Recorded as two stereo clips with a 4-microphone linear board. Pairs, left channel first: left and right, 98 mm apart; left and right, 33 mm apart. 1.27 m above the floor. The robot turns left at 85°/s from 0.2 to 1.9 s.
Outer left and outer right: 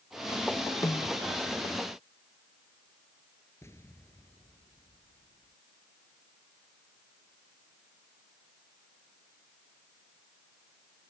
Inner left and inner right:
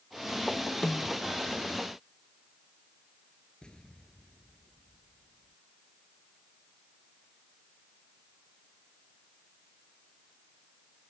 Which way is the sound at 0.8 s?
35° left (ahead or behind).